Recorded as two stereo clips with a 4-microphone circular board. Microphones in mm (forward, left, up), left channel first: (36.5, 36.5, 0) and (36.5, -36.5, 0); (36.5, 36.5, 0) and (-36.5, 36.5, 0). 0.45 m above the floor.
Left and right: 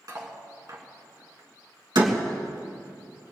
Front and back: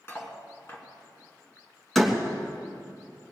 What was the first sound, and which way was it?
Cutlery clinking, 55° right.